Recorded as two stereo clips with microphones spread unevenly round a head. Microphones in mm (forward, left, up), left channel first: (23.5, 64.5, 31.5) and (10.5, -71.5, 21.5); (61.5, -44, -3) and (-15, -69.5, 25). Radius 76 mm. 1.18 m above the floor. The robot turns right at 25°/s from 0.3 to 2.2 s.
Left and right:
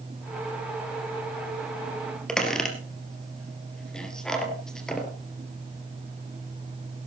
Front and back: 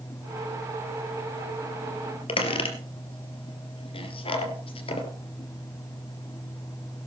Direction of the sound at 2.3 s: Straight ahead.